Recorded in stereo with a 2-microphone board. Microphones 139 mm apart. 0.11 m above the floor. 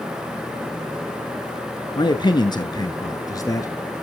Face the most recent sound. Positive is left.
turn(degrees=25)  # may be behind; listen again after turning